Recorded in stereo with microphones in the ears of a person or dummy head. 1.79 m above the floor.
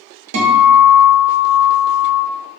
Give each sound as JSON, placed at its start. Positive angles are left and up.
{"t": 0.3, "sound": "a guitar", "side_deg": -80, "distance_m": 0.9}